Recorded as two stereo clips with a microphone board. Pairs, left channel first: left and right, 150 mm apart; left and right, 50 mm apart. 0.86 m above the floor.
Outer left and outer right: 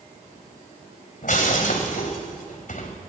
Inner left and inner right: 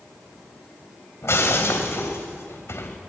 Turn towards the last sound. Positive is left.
turn(degrees=60)  # may be behind; listen again after turning